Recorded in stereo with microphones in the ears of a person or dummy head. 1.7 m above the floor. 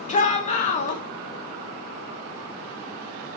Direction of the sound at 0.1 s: 35° left (ahead or behind).